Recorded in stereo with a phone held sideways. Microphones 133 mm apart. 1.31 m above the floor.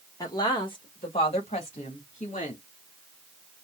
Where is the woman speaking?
25° left (ahead or behind), 1.5 m; by 2.6 s 55° left (ahead or behind), 2.5 m.